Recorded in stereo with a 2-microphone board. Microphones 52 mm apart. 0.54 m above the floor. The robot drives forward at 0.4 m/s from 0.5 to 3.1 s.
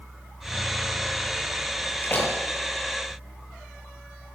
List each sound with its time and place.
2.0 s a door slam: 40° left (ahead or behind), 8 m